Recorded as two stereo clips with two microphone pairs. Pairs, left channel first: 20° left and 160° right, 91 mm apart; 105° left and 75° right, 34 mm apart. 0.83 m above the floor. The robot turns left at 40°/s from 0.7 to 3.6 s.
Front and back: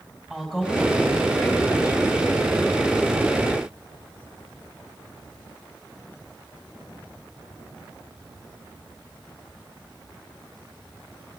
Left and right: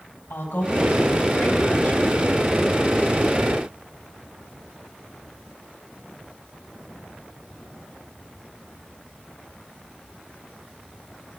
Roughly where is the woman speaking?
Behind left.